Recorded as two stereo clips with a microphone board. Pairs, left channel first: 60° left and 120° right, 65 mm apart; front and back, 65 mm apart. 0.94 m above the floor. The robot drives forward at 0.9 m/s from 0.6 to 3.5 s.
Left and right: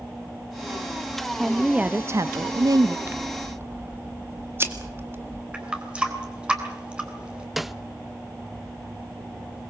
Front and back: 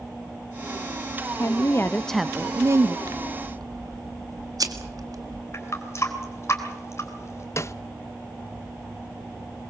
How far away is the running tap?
About 3 m.